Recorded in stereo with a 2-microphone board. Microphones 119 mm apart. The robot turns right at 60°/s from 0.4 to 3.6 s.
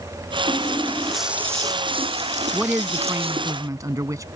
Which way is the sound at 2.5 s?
5° right (ahead or behind).